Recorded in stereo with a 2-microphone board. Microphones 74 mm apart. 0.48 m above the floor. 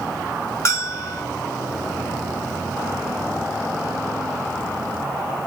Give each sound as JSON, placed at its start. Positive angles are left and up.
{"t": 0.7, "sound": "a bell", "side_deg": 40, "distance_m": 1.2}